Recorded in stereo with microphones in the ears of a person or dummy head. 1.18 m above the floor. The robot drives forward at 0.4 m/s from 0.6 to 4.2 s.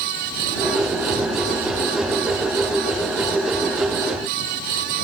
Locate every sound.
Only background noise.